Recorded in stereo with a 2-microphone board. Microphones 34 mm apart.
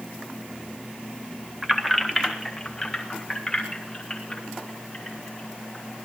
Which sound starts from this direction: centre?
Keys jangling, at 1.6 s.